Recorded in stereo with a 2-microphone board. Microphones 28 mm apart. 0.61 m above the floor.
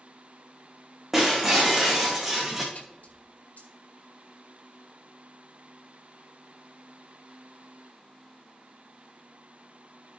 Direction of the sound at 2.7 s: 70° left (ahead or behind).